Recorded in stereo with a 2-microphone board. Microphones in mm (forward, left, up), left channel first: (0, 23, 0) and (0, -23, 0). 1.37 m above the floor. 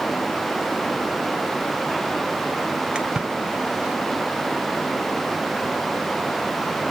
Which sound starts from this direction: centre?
A splash, at 3.0 s.